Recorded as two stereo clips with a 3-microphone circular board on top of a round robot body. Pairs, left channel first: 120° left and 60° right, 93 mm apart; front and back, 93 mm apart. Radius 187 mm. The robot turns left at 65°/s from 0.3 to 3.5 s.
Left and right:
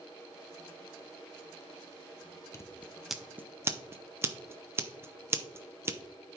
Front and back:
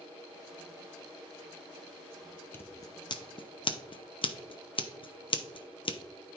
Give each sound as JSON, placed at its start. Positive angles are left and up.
{"t": 2.5, "sound": "scissors", "azimuth_deg": 65, "distance_m": 0.8}